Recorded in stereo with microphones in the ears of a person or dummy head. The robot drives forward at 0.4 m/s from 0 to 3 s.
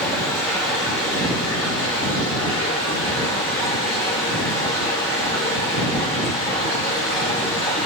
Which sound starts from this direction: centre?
Running water, at 0.0 s.